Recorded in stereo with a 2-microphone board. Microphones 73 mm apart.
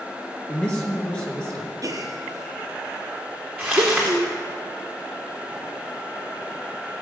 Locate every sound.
0.5 s a man speaking: 15° left (ahead or behind), 3 m
1.8 s a gasp: 60° right (ahead or behind), 1.8 m
3.6 s crumpling: centre (ahead or behind), 4.5 m